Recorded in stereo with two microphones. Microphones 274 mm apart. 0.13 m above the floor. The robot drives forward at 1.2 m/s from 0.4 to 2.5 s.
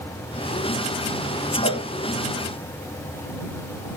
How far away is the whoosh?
About 5 m.